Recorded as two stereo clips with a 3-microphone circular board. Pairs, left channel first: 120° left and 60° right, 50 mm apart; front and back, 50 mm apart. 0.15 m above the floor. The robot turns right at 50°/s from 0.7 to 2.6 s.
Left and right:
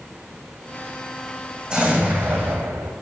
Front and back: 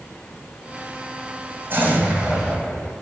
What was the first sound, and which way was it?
An explosion, 130° right.